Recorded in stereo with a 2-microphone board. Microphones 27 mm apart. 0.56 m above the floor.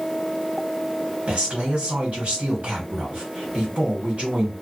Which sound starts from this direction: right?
A man speaking, at 1.3 s.